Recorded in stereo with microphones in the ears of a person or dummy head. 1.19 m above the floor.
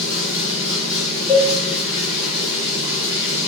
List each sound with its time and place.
0.0 s running water: 25° left (ahead or behind), 1.7 m
1.3 s a cowbell: 10° left (ahead or behind), 0.7 m